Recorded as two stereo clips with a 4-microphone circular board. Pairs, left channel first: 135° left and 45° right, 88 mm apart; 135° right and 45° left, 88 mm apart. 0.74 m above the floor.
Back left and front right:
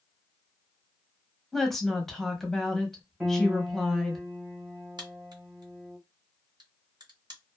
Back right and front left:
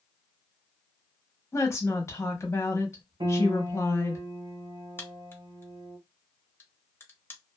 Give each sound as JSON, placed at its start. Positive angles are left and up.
{"t": 1.5, "sound": "a woman speaking", "azimuth_deg": -140, "distance_m": 0.9}
{"t": 3.2, "sound": "a piano", "azimuth_deg": 40, "distance_m": 1.6}
{"t": 5.0, "sound": "a crack", "azimuth_deg": -70, "distance_m": 0.7}